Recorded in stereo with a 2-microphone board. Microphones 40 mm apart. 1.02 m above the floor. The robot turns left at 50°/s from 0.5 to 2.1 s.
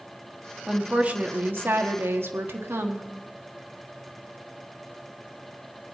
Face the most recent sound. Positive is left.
turn(degrees=-90)